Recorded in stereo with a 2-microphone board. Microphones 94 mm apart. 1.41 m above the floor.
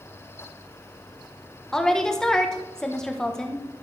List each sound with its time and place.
1.7 s a woman speaking: 5° left (ahead or behind), 1.2 m